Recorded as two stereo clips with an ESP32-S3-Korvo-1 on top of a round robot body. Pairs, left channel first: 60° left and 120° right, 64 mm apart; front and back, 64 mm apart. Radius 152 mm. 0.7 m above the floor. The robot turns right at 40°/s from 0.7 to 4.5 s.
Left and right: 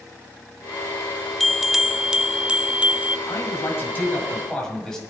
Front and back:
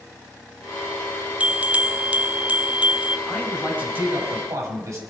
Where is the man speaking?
90° left, 5.5 m; by 5.0 s 140° left, 5.5 m.